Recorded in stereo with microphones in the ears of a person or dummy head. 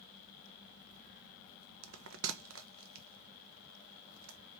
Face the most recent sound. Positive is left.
turn(degrees=-70)  # may be behind; listen again after turning